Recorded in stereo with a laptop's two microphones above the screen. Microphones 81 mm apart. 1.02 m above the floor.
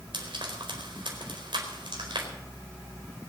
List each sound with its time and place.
0.1 s frying: 80° right, 4.5 m